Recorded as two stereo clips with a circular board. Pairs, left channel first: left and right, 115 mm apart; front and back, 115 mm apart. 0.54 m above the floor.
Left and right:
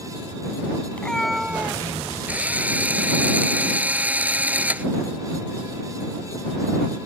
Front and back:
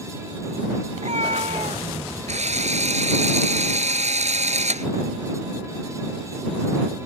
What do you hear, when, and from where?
0.9 s a cat meowing: 165° left; by 1.9 s 160° right
2.3 s a drill: 165° right